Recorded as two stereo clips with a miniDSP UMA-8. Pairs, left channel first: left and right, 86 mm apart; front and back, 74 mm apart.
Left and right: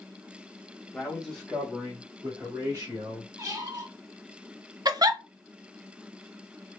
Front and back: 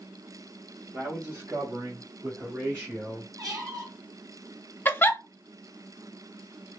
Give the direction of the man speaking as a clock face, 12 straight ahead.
7 o'clock.